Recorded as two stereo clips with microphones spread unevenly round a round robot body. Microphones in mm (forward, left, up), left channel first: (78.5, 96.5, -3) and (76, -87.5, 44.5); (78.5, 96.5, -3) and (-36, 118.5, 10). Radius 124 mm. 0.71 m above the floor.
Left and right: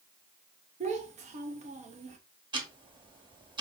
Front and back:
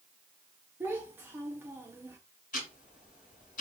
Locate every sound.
0.8 s a child speaking: 125° right, 0.6 m
2.5 s ticking: 25° right, 1.4 m